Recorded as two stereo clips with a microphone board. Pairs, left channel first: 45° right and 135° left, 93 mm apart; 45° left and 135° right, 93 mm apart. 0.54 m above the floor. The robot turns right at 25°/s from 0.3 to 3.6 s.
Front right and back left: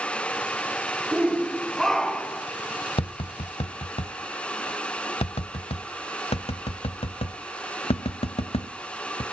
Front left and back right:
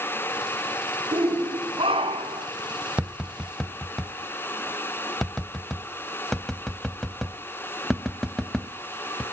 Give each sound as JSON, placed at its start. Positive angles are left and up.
{"t": 1.1, "sound": "a shout", "azimuth_deg": -150, "distance_m": 1.7}
{"t": 3.0, "sound": "tapping", "azimuth_deg": -55, "distance_m": 0.7}